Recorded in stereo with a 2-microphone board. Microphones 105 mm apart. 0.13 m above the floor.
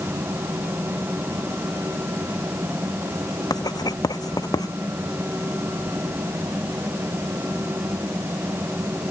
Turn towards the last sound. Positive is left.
turn(degrees=35)  # may be behind; listen again after turning